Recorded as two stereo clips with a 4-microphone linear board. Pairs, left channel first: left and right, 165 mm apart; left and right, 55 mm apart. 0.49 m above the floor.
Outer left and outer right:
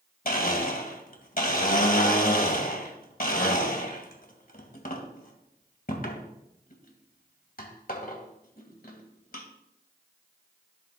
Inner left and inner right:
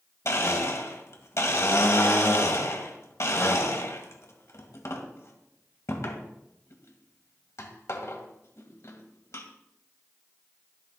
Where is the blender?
65° left (ahead or behind), 2 m.